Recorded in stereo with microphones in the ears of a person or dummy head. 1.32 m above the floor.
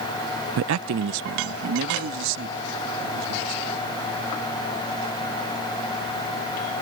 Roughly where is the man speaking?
Right.